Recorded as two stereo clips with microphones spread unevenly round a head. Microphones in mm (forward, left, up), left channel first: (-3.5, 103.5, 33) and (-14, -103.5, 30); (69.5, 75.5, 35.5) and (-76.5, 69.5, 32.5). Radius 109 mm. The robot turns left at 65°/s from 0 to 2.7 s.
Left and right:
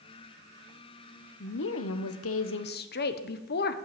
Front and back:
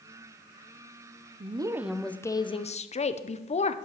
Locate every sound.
1.4 s a woman speaking: 130° left, 0.8 m; by 3.8 s 45° left, 0.8 m